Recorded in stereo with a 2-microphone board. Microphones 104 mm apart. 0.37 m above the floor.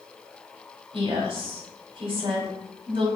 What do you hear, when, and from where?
0.9 s a woman speaking: 55° right (ahead or behind), 1.9 m